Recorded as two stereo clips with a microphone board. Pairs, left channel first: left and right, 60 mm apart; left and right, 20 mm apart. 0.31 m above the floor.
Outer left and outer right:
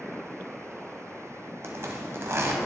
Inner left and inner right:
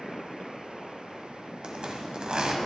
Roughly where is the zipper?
Right.